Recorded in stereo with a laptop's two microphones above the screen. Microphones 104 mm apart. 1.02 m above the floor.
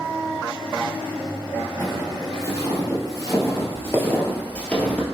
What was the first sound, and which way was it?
Footsteps, 35° left (ahead or behind).